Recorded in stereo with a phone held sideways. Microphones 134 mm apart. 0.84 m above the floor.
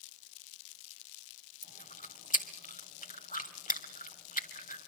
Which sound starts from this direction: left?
Chewing, at 1.6 s.